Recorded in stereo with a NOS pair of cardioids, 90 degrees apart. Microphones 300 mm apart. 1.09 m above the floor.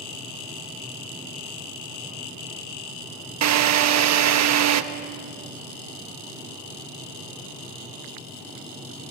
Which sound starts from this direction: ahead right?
A drill, at 3.4 s.